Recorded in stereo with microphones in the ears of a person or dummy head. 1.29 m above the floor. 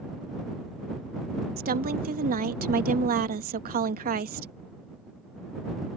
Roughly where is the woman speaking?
Right.